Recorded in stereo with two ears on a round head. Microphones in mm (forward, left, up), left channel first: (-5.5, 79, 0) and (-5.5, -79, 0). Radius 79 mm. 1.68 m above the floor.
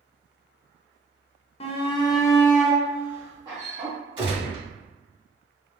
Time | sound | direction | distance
1.6 | a shout | 35° left (ahead or behind) | 0.6 m
4.2 | a gunshot | 30° right (ahead or behind) | 1.8 m